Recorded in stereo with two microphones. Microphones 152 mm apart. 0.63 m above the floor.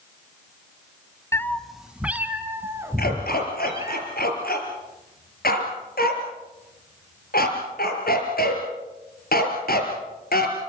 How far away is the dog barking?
About 3.5 m.